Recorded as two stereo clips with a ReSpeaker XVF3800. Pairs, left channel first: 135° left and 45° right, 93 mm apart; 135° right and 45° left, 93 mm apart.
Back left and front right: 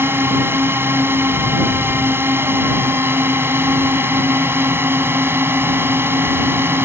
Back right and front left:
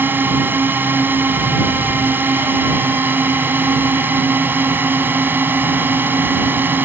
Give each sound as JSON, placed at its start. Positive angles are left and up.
{"t": 0.0, "sound": "a drone", "azimuth_deg": -5}